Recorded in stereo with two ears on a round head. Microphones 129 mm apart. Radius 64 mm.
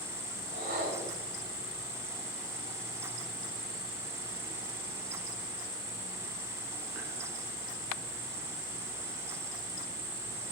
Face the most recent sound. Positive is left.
turn(degrees=-75)  # may be behind; listen again after turning